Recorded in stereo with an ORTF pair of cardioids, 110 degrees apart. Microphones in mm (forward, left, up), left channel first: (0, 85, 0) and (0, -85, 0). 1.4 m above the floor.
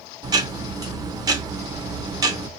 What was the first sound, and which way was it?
Ticking, 20° right.